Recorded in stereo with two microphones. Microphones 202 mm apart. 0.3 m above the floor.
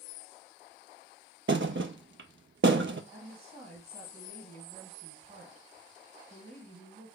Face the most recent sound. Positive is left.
turn(degrees=-35)  # may be behind; listen again after turning